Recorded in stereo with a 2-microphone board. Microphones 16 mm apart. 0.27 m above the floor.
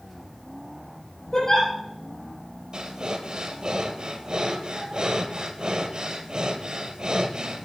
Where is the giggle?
40° left (ahead or behind), 9.5 m.